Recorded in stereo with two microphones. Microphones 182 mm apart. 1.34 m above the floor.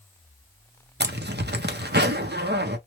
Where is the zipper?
75° right (ahead or behind), 0.6 m.